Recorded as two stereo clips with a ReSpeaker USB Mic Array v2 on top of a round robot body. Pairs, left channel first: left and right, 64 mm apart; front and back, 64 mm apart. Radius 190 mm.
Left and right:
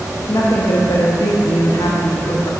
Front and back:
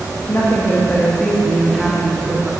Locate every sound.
0.3 s a woman speaking: 55° left, 1.4 m; by 2.5 s 100° left, 1.9 m